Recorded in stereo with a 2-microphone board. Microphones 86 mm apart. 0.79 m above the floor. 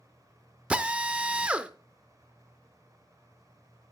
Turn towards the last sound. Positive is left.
turn(degrees=-15)  # may be behind; listen again after turning